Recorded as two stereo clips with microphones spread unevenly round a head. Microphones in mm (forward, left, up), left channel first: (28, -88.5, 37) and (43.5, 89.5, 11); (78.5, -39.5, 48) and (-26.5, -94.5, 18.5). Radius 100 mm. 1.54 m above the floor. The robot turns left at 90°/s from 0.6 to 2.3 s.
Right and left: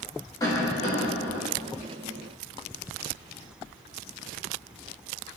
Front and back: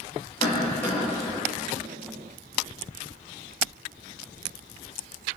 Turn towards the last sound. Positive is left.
turn(degrees=-175)